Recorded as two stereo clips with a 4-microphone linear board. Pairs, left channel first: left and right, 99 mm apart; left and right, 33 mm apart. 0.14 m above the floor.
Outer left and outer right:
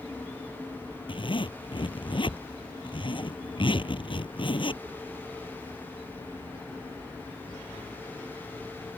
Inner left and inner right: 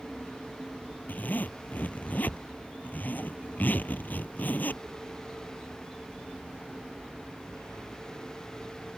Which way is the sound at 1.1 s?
55° left (ahead or behind).